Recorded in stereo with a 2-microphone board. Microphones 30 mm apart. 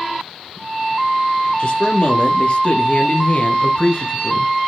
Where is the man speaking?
45° left (ahead or behind), 2.5 m; by 4.5 s 35° left (ahead or behind), 1.6 m.